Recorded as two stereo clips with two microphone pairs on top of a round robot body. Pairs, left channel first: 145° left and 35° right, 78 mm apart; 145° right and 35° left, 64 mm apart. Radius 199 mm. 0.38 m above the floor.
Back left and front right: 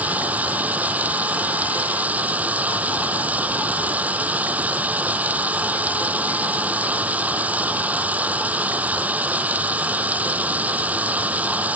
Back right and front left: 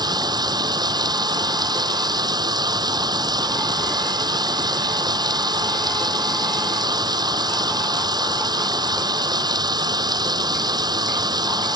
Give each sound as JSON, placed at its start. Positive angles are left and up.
{"t": 0.0, "sound": "running water", "azimuth_deg": 35}